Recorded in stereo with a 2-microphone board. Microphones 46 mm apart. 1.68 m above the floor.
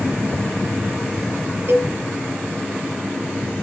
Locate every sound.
1.7 s a cowbell: 70° right (ahead or behind), 3.5 m